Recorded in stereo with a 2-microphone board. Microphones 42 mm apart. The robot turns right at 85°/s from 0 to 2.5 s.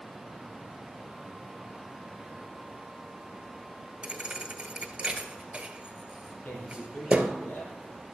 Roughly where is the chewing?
I don't hear chewing.